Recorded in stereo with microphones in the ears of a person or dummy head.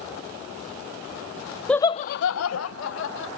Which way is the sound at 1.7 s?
Centre (ahead or behind).